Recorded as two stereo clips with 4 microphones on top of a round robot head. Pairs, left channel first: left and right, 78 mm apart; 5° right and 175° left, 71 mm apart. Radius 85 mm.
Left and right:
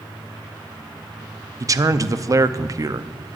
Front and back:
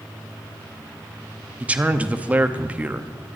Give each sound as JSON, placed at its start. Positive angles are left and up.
{"t": 1.6, "sound": "a man speaking", "azimuth_deg": -120, "distance_m": 0.8}